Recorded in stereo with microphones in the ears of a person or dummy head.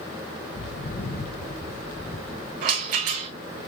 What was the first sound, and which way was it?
Footsteps, 45° left (ahead or behind).